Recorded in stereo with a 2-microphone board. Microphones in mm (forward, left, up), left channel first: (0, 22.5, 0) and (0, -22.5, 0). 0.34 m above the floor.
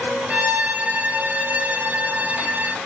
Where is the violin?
45° right (ahead or behind), 0.6 m.